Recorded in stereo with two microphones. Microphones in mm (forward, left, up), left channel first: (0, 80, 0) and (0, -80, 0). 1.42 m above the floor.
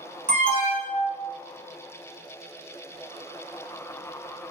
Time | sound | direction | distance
0.3 | an alarm | 50° right (ahead or behind) | 1.3 m